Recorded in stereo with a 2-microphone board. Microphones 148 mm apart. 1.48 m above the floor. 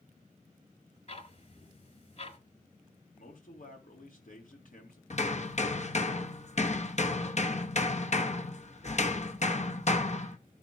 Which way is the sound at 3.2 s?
65° left (ahead or behind).